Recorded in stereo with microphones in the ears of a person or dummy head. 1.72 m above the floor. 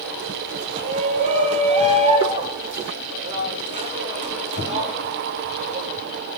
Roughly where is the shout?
Right.